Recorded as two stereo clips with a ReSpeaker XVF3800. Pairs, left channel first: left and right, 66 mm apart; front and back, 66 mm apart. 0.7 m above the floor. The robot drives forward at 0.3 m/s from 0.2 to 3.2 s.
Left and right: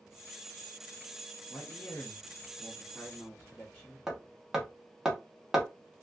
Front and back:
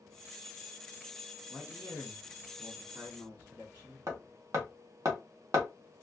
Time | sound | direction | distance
1.5 | a man speaking | 100° left | 0.7 m
4.1 | hammering | 170° right | 0.9 m